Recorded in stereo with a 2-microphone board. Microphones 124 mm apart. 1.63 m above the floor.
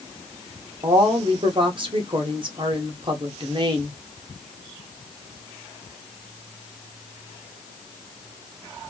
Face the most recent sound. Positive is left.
turn(degrees=-40)  # may be behind; listen again after turning